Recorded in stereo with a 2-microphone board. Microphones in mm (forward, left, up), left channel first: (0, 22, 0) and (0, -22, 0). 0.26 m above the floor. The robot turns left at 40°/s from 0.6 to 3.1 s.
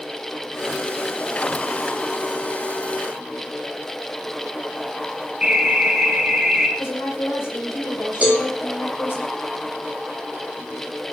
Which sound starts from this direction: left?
A woman speaking, at 6.8 s.